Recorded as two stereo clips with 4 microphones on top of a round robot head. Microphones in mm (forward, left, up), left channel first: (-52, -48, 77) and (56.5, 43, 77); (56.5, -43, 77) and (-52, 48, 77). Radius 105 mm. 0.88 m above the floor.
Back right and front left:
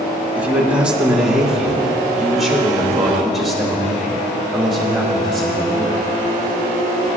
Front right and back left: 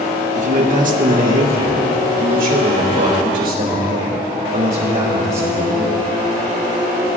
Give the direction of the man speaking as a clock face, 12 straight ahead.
8 o'clock.